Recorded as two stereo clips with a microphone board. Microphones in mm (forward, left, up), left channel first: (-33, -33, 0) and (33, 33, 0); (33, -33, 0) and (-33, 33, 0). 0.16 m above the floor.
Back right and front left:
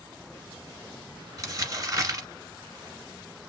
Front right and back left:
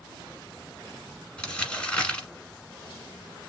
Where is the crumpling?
30° left, 1.3 m.